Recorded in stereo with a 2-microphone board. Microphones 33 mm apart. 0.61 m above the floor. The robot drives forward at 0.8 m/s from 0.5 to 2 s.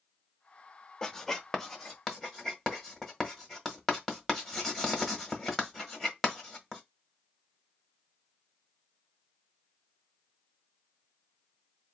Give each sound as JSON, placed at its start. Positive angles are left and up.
{"t": 1.0, "sound": "writing", "side_deg": 15, "distance_m": 0.6}